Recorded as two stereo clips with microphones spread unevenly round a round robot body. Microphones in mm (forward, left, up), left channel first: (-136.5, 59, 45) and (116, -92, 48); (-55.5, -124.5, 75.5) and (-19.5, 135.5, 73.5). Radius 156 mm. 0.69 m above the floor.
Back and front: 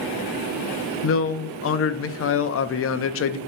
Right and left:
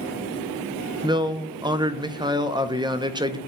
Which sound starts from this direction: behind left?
A man speaking, at 1.0 s.